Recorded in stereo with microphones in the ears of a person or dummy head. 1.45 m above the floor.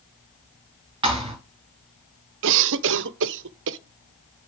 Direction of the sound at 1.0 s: 30° right (ahead or behind).